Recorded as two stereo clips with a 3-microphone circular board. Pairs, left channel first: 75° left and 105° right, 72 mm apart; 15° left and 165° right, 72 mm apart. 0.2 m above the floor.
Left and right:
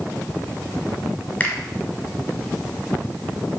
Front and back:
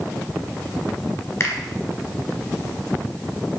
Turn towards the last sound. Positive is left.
turn(degrees=25)